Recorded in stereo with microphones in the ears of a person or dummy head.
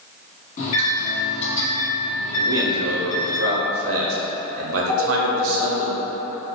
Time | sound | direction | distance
0.6 | a microwave | 50° left (ahead or behind) | 1.1 m
2.4 | a man speaking | 65° right (ahead or behind) | 0.7 m
4.9 | a phone ringing | 35° right (ahead or behind) | 1.4 m